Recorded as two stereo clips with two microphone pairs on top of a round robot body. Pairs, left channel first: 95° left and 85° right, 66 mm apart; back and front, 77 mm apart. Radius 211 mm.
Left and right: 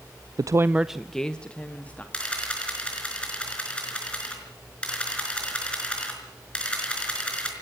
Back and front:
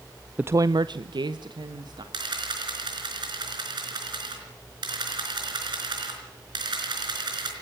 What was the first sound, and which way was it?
A woman speaking, 70° right.